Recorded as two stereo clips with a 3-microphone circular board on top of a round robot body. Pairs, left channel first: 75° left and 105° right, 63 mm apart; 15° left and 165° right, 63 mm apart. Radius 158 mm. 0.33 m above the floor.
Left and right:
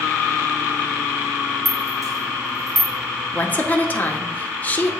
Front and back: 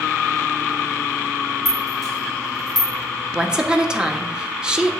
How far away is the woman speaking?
About 1.0 m.